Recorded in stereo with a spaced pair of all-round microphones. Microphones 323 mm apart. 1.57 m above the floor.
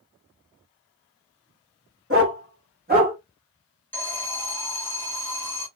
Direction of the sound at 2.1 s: 40° right (ahead or behind).